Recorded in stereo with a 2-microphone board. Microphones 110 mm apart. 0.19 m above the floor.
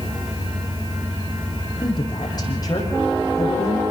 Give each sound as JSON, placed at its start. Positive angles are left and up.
{"t": 1.8, "sound": "a woman speaking", "side_deg": 40, "distance_m": 7.5}